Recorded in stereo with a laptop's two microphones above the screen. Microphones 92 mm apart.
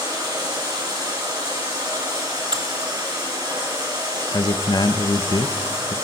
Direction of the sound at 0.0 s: 50° right (ahead or behind).